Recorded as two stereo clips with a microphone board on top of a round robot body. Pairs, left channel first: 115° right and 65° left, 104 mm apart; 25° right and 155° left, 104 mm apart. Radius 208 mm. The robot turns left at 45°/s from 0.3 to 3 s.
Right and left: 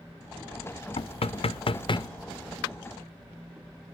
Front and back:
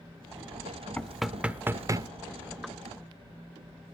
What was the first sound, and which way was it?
Knocking, 105° right.